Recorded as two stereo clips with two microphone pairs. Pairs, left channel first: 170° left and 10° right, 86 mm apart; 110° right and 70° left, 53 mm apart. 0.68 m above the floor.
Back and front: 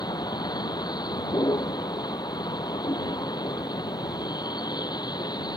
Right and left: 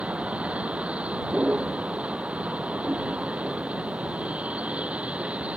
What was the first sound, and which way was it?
A vehicle, 135° left.